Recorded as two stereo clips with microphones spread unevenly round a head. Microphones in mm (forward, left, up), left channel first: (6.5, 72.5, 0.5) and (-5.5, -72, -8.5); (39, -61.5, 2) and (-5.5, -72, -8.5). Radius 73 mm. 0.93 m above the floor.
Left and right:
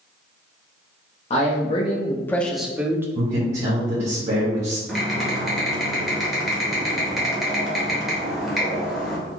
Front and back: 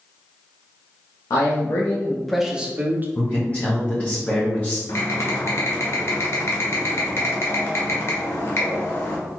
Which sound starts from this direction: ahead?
Typing on a keyboard, at 4.9 s.